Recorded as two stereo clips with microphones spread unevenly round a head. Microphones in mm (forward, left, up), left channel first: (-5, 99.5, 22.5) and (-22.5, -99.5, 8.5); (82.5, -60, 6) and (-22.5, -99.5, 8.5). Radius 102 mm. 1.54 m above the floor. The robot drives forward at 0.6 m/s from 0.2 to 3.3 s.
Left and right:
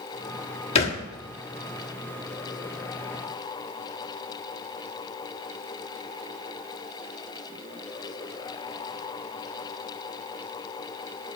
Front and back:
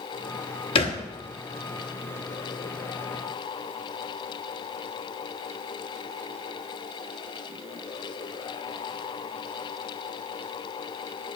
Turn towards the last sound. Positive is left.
turn(degrees=145)